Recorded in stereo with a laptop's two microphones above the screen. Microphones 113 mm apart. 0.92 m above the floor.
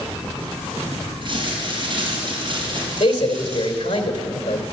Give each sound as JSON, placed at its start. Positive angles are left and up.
{"t": 1.2, "sound": "crumpling", "side_deg": -45, "distance_m": 5.5}
{"t": 3.0, "sound": "a man speaking", "side_deg": 75, "distance_m": 3.0}